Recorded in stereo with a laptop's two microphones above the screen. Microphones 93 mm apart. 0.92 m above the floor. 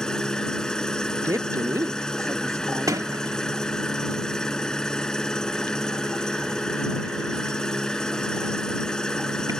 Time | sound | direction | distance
0.0 | an engine running | 5° left (ahead or behind) | ?
1.2 | a woman speaking | 35° right (ahead or behind) | ?
2.9 | a sliding door | 40° right (ahead or behind) | ?